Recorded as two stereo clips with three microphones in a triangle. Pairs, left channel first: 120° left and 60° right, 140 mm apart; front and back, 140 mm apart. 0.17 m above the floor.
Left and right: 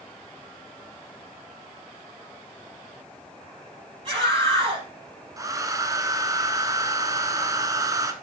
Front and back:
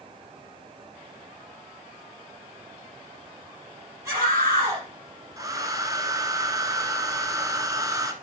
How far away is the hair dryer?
About 1.0 m.